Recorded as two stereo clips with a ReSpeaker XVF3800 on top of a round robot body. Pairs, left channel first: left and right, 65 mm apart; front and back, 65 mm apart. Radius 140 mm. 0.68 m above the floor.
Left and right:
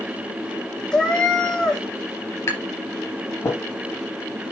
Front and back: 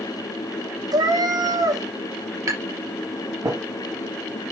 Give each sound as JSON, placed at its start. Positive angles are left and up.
{"t": 0.9, "sound": "a cat meowing", "azimuth_deg": 170, "distance_m": 2.0}
{"t": 2.5, "sound": "tapping", "azimuth_deg": 140, "distance_m": 3.5}